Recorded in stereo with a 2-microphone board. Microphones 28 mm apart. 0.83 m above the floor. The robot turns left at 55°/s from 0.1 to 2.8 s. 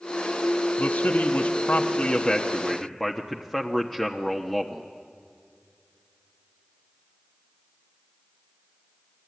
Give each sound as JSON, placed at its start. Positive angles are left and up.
{"t": 0.8, "sound": "a man speaking", "azimuth_deg": 125, "distance_m": 1.2}